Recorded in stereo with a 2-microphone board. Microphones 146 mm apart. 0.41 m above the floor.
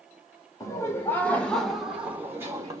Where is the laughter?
20° left (ahead or behind), 1.4 m; by 2.8 s 25° right (ahead or behind), 1.2 m.